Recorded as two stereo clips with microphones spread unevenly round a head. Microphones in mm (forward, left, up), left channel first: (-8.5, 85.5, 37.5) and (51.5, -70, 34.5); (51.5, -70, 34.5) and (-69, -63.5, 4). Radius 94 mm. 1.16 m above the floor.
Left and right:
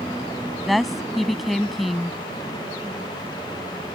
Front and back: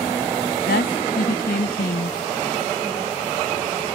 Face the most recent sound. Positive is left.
turn(degrees=20)